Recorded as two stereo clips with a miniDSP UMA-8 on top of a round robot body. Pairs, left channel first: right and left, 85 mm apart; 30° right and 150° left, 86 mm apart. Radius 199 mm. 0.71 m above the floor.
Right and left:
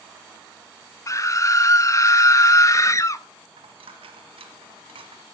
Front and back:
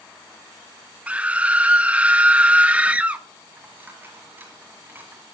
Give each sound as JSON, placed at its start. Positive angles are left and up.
{"t": 1.1, "sound": "a scream", "azimuth_deg": -140, "distance_m": 1.1}
{"t": 3.6, "sound": "a dropped coin", "azimuth_deg": 80, "distance_m": 1.0}